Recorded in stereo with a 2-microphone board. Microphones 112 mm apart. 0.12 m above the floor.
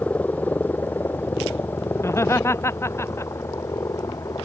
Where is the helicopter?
15° left (ahead or behind); by 4.5 s 30° left (ahead or behind).